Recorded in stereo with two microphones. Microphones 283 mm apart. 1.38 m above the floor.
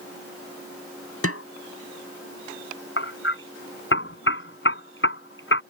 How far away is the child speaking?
No child speaking in this recording.